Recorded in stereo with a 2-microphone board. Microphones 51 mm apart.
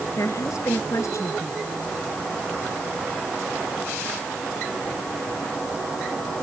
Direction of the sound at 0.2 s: 70° left (ahead or behind).